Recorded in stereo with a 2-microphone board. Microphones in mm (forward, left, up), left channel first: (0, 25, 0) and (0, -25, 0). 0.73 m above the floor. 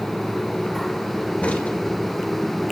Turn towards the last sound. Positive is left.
turn(degrees=25)  # may be behind; listen again after turning